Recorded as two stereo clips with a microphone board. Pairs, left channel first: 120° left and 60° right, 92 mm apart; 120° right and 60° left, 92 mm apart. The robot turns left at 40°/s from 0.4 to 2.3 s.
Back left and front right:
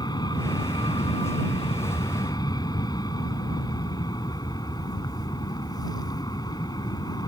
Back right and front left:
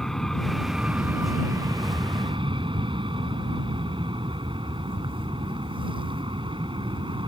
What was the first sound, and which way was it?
An aircraft, 155° left.